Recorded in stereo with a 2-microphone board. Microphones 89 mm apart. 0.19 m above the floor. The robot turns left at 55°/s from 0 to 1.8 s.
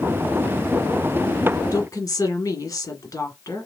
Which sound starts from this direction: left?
A woman speaking, at 1.7 s.